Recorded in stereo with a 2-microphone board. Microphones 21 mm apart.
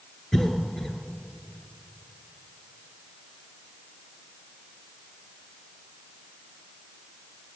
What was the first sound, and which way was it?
A cough, 25° left (ahead or behind).